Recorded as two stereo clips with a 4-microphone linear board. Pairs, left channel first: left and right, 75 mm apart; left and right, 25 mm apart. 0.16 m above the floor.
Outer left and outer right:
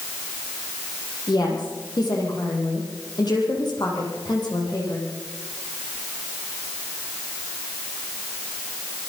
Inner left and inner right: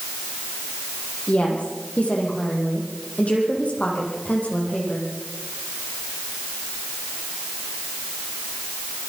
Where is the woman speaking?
65° left (ahead or behind), 7.5 m.